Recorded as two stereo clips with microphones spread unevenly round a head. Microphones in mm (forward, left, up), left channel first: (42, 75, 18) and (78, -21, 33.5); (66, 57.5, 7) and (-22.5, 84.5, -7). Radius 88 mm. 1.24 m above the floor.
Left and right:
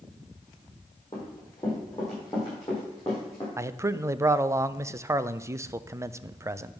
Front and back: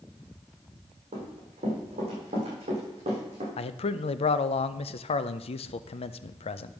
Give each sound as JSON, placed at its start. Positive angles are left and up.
{"t": 1.1, "sound": "running footsteps", "azimuth_deg": 180, "distance_m": 3.5}
{"t": 3.6, "sound": "a man speaking", "azimuth_deg": -5, "distance_m": 0.5}